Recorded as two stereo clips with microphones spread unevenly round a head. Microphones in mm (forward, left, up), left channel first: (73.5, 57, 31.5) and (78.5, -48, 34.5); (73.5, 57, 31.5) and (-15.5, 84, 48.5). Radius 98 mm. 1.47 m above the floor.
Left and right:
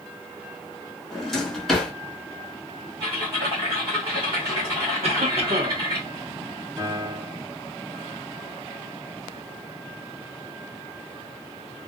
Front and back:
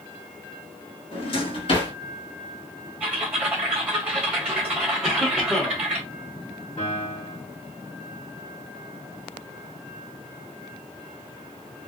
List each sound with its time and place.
1.1 s a drawer: 5° left, 1.8 m
3.0 s typing on a keyboard: 135° right, 1.3 m
5.0 s a cough: 105° right, 0.9 m
6.8 s a piano: 35° right, 1.5 m